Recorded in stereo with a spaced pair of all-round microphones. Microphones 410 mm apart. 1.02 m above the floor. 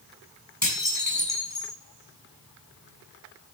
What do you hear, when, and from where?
0.6 s dishes clattering: 40° left (ahead or behind), 6.5 m